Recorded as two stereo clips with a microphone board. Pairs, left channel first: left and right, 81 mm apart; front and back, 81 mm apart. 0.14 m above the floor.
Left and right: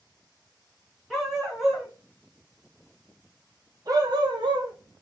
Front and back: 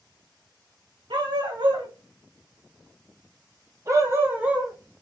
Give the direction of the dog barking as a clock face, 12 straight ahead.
6 o'clock.